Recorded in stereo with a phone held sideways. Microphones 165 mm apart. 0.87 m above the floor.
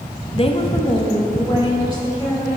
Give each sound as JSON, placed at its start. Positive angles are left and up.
{"t": 0.3, "sound": "a woman speaking", "side_deg": 35, "distance_m": 0.6}